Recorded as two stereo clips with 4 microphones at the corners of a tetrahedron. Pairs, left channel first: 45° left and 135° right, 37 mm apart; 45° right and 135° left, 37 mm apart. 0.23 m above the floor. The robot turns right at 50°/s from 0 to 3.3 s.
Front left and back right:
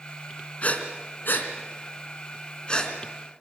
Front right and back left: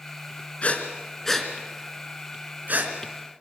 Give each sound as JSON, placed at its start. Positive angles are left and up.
{"t": 0.6, "sound": "breathing", "azimuth_deg": 0, "distance_m": 2.5}